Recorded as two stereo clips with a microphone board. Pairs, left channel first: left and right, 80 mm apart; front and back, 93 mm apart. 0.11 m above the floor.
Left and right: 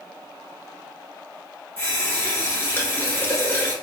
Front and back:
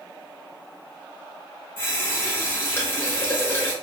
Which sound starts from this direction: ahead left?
A running tap, at 1.8 s.